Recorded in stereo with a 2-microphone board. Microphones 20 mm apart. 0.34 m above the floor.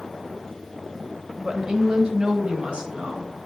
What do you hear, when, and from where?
1.4 s a woman speaking: 30° right (ahead or behind), 1.0 m; by 3.3 s 60° right (ahead or behind), 3 m